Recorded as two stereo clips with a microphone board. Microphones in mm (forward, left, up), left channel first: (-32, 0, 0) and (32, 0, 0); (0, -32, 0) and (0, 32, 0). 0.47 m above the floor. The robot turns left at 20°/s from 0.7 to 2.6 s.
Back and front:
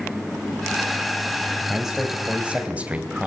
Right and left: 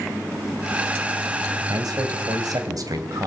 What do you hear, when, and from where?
1.7 s a man speaking: 90° left, 2.5 m; by 3.3 s 70° left, 2.5 m